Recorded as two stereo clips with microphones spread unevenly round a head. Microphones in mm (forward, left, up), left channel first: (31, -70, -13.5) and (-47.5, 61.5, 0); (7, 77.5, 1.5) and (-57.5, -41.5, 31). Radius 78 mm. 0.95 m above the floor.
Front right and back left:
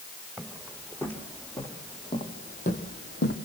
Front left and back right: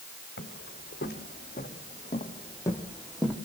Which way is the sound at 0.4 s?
30° left.